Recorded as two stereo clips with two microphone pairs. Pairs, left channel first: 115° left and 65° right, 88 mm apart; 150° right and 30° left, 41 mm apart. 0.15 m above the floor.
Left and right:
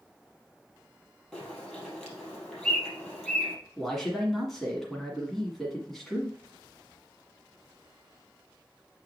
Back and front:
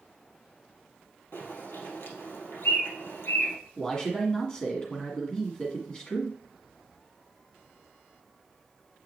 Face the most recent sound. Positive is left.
turn(degrees=-165)